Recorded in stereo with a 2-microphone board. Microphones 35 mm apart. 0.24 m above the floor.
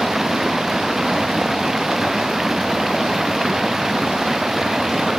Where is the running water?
10° right (ahead or behind).